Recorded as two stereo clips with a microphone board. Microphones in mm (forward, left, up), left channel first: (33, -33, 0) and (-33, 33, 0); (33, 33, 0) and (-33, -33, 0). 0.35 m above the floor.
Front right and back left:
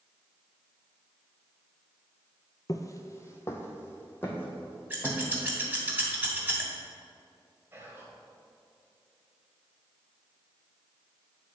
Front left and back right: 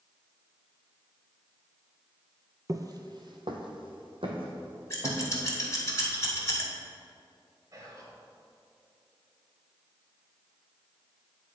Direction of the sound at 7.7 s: 170° right.